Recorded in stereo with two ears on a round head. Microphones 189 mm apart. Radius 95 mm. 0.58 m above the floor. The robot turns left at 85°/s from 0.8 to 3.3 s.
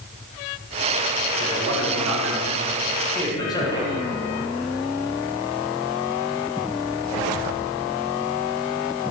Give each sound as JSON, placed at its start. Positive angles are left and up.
{"t": 1.4, "sound": "a man speaking", "side_deg": -40, "distance_m": 6.0}